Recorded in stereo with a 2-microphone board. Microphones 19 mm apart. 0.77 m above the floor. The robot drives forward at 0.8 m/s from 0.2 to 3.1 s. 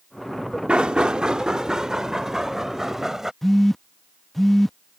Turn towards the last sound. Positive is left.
turn(degrees=15)  # may be behind; listen again after turning